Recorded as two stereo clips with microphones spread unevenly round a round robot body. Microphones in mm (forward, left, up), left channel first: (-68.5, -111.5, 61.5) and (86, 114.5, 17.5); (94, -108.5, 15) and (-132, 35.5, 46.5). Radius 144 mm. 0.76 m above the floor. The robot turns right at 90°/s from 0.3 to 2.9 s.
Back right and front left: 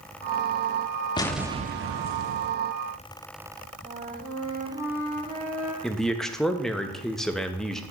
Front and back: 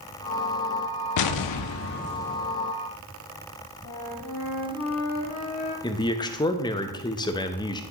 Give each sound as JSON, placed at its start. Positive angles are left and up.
{"t": 1.2, "sound": "an explosion", "azimuth_deg": -50, "distance_m": 0.5}
{"t": 3.8, "sound": "a flute", "azimuth_deg": 0, "distance_m": 2.0}
{"t": 5.8, "sound": "a man speaking", "azimuth_deg": -15, "distance_m": 0.5}